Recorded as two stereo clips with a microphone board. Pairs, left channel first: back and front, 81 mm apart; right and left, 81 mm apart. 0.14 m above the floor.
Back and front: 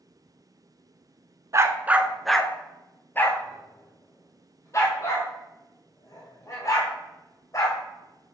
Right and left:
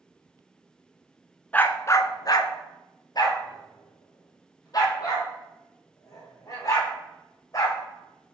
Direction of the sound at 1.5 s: 30° right.